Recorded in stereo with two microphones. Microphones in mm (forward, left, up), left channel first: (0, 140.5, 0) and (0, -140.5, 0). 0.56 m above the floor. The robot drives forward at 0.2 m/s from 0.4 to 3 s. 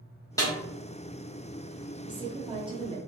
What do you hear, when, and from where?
0.4 s a snare drum: 10° left (ahead or behind), 0.9 m
2.0 s a woman speaking: 20° right (ahead or behind), 0.6 m